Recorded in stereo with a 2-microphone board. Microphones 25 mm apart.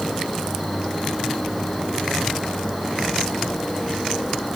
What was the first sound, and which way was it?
An insect, centre (ahead or behind).